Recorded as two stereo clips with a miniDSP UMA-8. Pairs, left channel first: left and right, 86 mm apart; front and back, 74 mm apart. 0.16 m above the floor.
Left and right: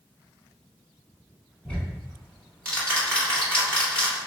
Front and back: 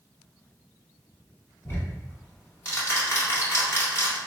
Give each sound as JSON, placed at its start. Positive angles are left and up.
{"t": 1.6, "sound": "ticking", "azimuth_deg": 20, "distance_m": 1.1}